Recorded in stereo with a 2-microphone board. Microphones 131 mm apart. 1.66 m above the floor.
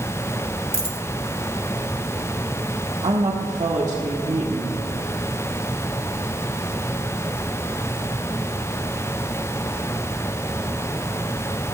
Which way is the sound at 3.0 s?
60° right (ahead or behind).